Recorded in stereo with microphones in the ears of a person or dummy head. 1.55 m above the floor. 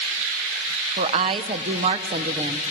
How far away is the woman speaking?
About 0.8 m.